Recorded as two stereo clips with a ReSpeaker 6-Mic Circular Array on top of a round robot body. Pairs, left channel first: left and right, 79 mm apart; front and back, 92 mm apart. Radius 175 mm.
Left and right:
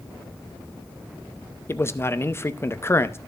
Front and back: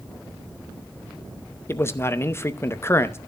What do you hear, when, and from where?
1.7 s a man speaking: 50° left, 1.0 m